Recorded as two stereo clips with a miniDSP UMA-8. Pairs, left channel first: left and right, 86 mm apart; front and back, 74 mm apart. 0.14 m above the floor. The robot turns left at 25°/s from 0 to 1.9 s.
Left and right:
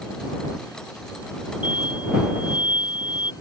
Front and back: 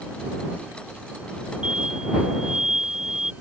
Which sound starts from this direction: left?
An explosion, at 1.6 s.